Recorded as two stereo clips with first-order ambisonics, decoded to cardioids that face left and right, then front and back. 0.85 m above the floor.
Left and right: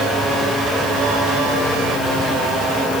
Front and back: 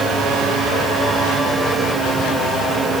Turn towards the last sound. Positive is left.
No sound to turn to.